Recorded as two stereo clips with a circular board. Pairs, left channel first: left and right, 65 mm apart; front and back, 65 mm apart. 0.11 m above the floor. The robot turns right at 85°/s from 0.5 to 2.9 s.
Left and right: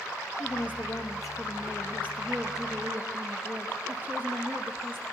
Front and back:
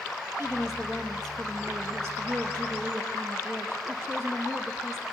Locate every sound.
0.4 s a woman speaking: 15° left, 2.5 m; by 5.1 s 140° right, 2.5 m